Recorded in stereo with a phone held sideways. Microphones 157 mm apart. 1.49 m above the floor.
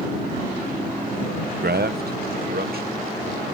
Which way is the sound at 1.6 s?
80° right.